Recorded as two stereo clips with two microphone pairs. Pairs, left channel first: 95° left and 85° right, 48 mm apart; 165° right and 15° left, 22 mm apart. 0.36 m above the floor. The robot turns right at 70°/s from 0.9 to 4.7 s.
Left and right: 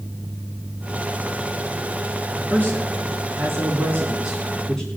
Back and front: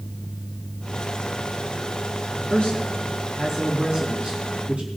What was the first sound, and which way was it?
A man speaking, 150° right.